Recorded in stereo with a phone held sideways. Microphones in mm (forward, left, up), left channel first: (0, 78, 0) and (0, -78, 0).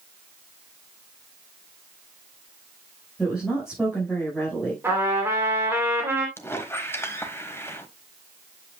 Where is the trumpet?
15° right (ahead or behind), 3 m.